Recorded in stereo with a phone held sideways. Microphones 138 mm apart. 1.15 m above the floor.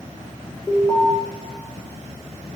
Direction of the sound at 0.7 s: 10° left (ahead or behind).